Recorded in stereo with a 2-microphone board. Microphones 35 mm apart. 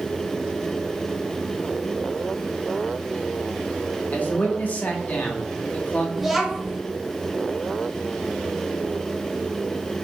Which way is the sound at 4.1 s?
50° left (ahead or behind).